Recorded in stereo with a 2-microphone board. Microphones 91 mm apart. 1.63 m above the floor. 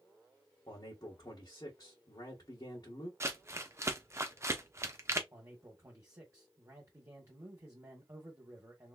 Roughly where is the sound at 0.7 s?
Left.